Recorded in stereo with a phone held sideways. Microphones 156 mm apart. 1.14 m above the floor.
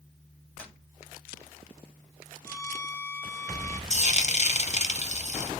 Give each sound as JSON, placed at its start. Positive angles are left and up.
{"t": 0.6, "sound": "tapping", "side_deg": 10, "distance_m": 2.0}
{"t": 2.5, "sound": "a violin", "side_deg": 15, "distance_m": 0.8}
{"t": 3.9, "sound": "frying", "side_deg": 45, "distance_m": 0.7}